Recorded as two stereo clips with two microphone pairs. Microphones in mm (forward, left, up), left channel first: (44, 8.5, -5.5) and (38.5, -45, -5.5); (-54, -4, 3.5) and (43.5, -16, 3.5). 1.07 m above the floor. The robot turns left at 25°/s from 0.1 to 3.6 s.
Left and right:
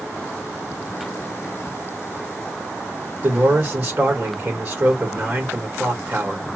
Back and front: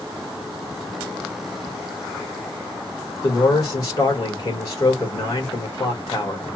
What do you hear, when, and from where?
3.2 s a man speaking: 130° right, 1.6 m; by 6.5 s 140° right, 1.6 m